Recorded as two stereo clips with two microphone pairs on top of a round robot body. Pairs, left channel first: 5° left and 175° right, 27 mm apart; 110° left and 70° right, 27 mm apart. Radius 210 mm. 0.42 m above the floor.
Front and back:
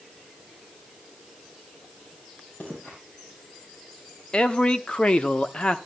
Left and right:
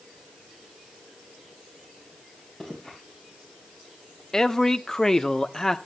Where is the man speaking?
50° left, 1.2 m.